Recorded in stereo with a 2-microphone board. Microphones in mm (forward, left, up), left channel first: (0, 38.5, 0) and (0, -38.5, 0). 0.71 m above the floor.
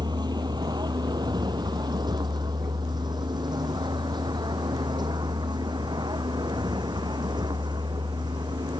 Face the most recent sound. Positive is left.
turn(degrees=-65)  # may be behind; listen again after turning